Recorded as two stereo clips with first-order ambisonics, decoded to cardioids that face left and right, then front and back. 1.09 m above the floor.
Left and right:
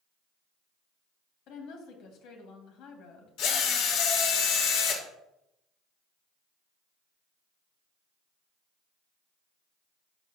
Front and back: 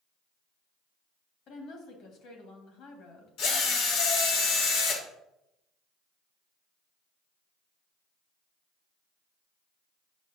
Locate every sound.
1.5 s a woman speaking: 45° left, 1.7 m
3.4 s a drill: 45° left, 1.2 m